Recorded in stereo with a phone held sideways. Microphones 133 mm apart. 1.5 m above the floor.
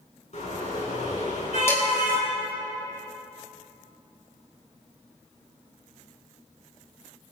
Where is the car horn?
60° left (ahead or behind), 6.5 m; by 2.3 s 55° left (ahead or behind), 7.5 m.